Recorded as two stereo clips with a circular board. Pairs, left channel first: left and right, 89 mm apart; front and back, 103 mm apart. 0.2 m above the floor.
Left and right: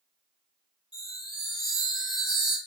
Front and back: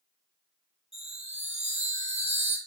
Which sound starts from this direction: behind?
A chime, at 0.9 s.